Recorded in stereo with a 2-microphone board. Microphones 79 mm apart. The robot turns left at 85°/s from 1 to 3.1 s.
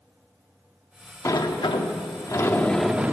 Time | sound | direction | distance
1.2 | a sliding door | 135° left | 0.7 m